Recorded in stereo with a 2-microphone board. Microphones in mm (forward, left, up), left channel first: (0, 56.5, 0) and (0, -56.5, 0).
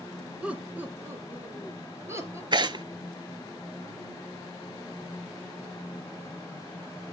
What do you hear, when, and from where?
0.4 s laughter: 10° right (ahead or behind), 1.3 m; by 2.4 s 25° right (ahead or behind), 2.5 m
2.5 s tearing paper: 45° right (ahead or behind), 0.5 m